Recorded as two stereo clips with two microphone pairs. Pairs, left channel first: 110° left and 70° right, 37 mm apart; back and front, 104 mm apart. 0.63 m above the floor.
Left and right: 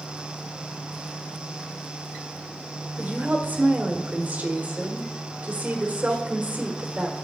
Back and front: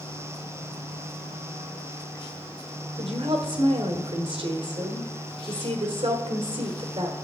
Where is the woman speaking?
20° right, 1.5 m.